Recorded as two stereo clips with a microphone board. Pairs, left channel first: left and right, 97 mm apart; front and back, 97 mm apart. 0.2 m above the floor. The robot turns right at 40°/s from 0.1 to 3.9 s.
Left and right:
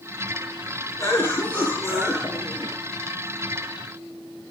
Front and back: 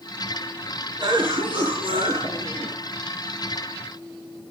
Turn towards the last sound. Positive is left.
turn(degrees=-100)